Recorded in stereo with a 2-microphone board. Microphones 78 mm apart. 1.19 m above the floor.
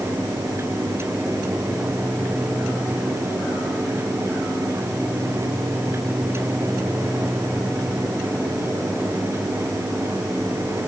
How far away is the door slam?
I don't hear a door slam.